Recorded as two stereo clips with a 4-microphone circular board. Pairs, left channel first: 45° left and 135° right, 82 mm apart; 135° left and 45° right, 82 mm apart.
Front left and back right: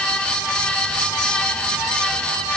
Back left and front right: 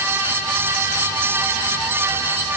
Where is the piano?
I don't hear a piano.